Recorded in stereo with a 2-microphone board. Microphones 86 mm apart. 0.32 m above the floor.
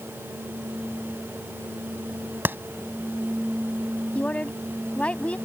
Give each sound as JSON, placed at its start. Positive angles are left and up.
{"t": 2.5, "sound": "a clap", "side_deg": -25}
{"t": 4.2, "sound": "a woman speaking", "side_deg": 15}